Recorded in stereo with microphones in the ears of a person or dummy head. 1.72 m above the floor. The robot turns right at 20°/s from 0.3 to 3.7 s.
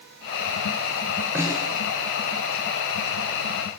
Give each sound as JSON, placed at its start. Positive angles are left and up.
{"t": 1.4, "sound": "a snare drum", "side_deg": -10, "distance_m": 8.5}